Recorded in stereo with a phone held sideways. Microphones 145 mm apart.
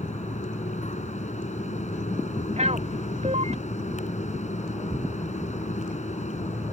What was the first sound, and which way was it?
A fan, 55° left (ahead or behind).